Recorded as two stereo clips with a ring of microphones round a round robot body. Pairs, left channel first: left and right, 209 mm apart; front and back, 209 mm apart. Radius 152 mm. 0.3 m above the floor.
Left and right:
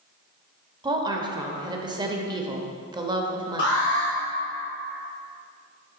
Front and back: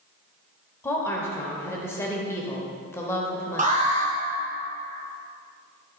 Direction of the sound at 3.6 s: 130° left.